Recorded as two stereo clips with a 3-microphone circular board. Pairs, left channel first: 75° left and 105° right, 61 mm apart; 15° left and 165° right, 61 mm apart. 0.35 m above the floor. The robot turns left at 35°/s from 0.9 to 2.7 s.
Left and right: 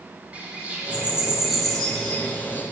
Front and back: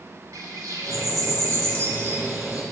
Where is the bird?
170° right, 0.9 m; by 2.6 s 130° left, 0.9 m.